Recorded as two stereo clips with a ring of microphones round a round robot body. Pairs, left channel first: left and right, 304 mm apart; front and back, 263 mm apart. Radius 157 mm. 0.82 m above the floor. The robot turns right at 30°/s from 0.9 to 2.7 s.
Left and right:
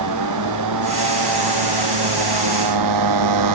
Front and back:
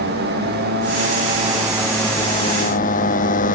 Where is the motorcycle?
120° right; by 3.6 s 65° right.